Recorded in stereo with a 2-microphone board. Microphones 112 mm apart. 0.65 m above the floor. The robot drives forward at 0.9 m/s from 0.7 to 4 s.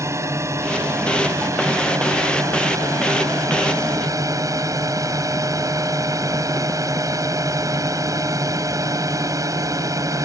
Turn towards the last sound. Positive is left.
turn(degrees=-30)  # may be behind; listen again after turning